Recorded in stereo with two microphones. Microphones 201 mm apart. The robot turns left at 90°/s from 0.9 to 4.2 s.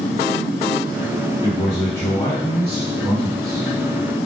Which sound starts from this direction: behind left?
A man speaking, at 1.4 s.